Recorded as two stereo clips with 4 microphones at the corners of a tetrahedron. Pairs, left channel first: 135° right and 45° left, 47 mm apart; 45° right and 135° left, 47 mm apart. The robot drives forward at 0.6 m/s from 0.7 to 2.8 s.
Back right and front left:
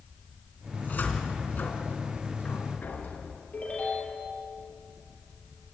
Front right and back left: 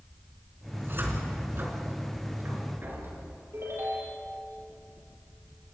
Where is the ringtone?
165° left, 7.5 m.